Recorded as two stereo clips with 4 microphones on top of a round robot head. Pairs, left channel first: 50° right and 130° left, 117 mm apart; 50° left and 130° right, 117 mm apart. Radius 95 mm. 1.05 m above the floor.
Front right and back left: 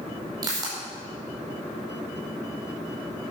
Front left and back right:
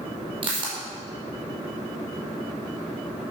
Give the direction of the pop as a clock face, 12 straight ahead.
6 o'clock.